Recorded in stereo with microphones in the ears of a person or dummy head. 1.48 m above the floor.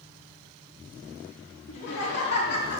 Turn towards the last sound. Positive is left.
turn(degrees=55)  # may be behind; listen again after turning